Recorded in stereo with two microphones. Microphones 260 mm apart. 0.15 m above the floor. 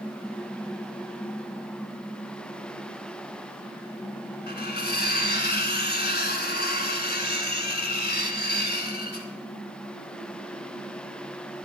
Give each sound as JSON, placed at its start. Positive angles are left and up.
{"t": 4.5, "sound": "cutlery clinking", "side_deg": 35, "distance_m": 1.1}